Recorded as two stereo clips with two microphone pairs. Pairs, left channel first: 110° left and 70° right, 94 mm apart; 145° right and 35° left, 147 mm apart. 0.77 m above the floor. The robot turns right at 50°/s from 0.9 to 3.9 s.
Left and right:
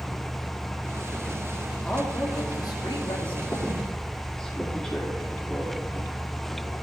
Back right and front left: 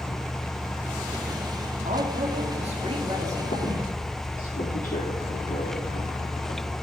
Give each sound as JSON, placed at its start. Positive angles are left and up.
{"t": 1.8, "sound": "a man speaking", "azimuth_deg": 30, "distance_m": 2.0}
{"t": 3.5, "sound": "a squeak", "azimuth_deg": 175, "distance_m": 5.0}